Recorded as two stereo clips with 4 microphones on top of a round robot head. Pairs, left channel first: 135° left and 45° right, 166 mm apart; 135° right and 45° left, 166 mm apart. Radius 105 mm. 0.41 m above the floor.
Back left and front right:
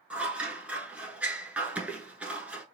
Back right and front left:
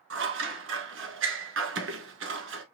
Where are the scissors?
35° left, 0.9 m.